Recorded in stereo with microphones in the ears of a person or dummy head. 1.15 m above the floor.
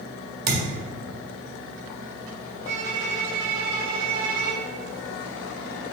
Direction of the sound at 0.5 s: 50° right (ahead or behind).